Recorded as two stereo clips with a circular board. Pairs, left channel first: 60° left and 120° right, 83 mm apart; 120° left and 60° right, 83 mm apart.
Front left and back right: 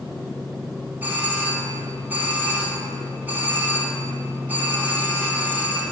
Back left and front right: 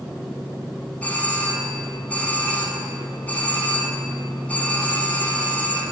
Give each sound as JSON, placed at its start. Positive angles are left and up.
{"t": 1.0, "sound": "a doorbell", "azimuth_deg": 180, "distance_m": 1.8}